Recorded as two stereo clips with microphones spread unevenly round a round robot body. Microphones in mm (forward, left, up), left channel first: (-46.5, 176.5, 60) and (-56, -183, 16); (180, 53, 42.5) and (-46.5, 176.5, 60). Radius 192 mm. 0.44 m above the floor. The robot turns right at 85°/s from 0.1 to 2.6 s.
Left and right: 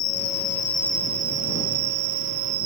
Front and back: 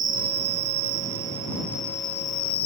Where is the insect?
115° left; by 2.7 s 35° right.